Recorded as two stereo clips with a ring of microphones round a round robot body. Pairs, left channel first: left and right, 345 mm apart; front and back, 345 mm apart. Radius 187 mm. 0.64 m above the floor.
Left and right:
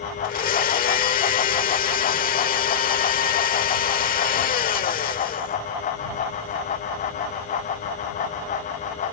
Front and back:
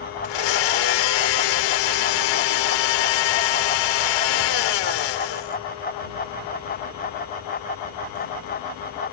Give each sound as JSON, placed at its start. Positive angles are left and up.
{"t": 0.2, "sound": "a blender", "azimuth_deg": 20}